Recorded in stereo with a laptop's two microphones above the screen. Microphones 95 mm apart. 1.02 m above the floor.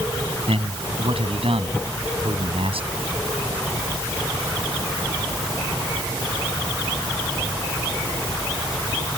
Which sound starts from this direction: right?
A man speaking, at 0.5 s.